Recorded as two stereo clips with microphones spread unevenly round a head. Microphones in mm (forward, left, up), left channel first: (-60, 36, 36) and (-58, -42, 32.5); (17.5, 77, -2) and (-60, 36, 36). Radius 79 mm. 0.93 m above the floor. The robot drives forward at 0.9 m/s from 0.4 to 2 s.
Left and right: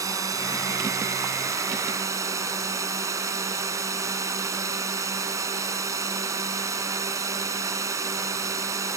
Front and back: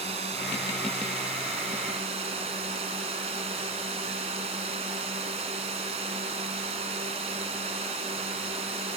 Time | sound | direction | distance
0.0 | a drone | 135° right | ?